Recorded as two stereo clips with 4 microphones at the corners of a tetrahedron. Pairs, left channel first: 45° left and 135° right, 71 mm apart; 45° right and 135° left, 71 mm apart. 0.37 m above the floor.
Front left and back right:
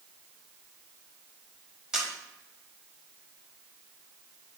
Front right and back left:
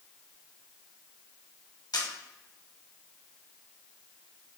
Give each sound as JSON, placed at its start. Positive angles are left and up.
{"t": 1.9, "sound": "a camera shutter", "azimuth_deg": -55, "distance_m": 0.9}